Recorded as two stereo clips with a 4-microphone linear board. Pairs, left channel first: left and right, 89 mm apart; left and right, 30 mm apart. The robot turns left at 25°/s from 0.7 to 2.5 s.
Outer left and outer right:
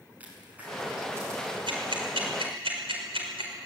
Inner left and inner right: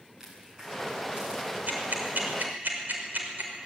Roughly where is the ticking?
Right.